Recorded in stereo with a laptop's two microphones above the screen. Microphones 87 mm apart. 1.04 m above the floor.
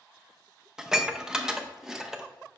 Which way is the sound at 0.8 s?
5° right (ahead or behind).